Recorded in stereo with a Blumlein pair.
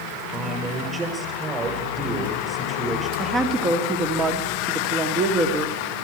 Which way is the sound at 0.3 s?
15° right.